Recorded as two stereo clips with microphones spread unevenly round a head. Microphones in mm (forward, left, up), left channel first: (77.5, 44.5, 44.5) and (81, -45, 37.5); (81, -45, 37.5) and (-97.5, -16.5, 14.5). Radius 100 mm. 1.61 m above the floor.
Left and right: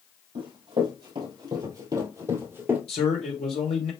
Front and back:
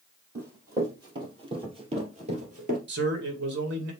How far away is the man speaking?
About 1.5 m.